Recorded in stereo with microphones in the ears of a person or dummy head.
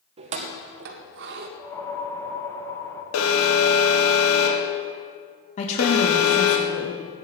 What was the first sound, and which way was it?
Keys jangling, 30° right (ahead or behind).